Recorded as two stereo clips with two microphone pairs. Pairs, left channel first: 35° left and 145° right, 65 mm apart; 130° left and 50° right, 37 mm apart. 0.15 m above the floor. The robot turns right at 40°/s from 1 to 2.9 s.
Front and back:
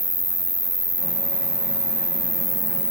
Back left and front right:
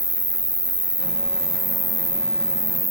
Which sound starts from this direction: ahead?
An insect, at 0.0 s.